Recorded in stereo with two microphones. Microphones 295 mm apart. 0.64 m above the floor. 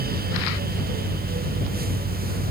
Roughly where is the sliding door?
I don't hear a sliding door.